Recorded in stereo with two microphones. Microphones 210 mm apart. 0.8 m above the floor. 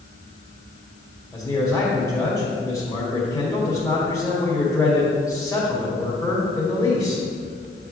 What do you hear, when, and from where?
1.3 s a man speaking: 10° left (ahead or behind), 2 m